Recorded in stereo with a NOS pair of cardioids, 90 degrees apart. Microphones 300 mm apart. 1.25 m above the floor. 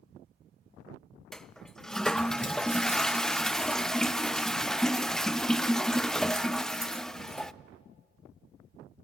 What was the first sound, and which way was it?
A toilet flushing, straight ahead.